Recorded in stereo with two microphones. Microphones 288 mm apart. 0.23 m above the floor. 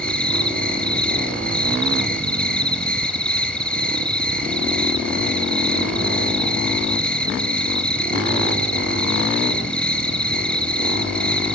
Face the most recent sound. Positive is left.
turn(degrees=5)  # may be behind; listen again after turning